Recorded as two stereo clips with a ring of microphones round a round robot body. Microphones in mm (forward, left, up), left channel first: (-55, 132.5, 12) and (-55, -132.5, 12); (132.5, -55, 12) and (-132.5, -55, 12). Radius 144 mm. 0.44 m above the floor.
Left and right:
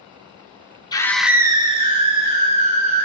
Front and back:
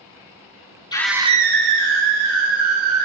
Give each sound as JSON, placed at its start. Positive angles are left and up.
{"t": 0.9, "sound": "a scream", "azimuth_deg": 45, "distance_m": 0.8}